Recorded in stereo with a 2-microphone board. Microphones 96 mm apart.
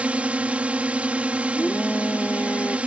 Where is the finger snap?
No finger snap in this recording.